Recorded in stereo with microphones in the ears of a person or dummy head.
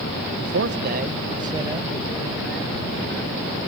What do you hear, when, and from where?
0.4 s a man speaking: 60° right (ahead or behind); by 3.5 s 5° left (ahead or behind)